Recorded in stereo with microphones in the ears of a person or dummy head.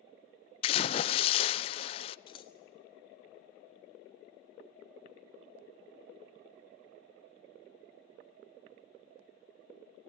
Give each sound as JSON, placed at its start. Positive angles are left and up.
{"t": 0.6, "sound": "a splash", "side_deg": 30, "distance_m": 0.5}
{"t": 2.3, "sound": "scissors", "side_deg": 35, "distance_m": 0.7}